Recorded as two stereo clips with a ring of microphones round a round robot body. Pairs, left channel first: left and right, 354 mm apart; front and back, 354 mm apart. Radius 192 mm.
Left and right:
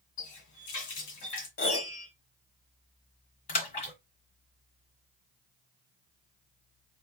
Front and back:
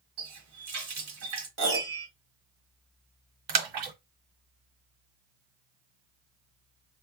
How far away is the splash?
About 1.4 m.